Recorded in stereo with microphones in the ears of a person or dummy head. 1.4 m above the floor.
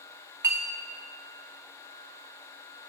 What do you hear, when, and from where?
0.4 s a clink: 15° right (ahead or behind), 0.7 m